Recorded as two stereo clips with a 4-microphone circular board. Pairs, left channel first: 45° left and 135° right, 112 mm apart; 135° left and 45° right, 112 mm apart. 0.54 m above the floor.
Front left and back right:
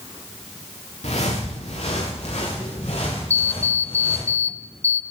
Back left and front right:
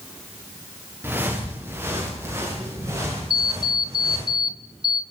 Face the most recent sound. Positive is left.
turn(degrees=-75)